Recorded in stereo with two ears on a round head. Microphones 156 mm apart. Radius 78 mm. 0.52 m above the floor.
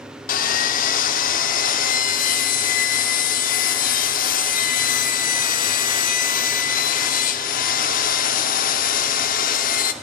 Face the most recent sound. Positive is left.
turn(degrees=50)  # may be behind; listen again after turning